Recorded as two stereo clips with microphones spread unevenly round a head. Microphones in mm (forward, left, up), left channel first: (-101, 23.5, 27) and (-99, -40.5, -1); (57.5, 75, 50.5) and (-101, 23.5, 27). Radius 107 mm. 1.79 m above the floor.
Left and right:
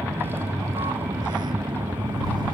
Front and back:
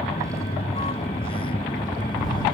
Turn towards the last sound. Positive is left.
turn(degrees=-50)